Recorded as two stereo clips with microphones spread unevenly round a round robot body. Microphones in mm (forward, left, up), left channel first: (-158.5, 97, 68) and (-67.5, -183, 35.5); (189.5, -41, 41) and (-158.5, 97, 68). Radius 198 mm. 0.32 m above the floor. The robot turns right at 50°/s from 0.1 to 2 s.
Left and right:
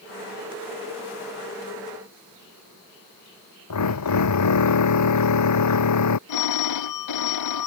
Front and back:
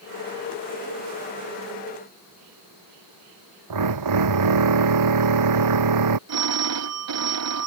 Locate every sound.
3.7 s a drill: 125° left
6.3 s a phone ringing: 110° left